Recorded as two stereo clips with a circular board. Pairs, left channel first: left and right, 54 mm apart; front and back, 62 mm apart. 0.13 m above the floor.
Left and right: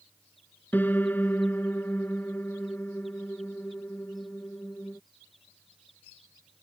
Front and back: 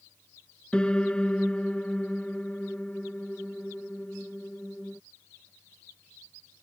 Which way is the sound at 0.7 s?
65° left.